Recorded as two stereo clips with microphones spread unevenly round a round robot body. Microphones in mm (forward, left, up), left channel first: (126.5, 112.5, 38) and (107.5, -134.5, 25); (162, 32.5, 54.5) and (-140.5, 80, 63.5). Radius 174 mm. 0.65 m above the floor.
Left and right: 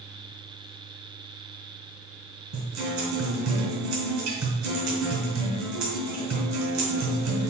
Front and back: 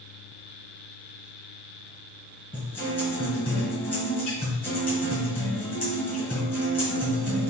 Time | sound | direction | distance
2.5 | a guitar | 95° right | 1.8 m